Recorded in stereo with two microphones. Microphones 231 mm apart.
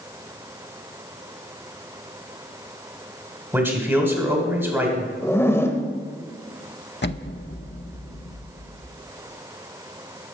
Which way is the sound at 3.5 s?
10° right (ahead or behind).